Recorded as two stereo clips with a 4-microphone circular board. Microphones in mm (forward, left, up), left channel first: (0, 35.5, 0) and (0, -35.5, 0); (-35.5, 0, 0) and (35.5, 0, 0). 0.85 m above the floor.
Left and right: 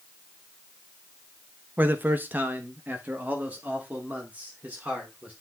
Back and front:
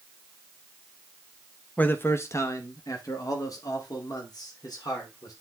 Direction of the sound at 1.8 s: 130° right.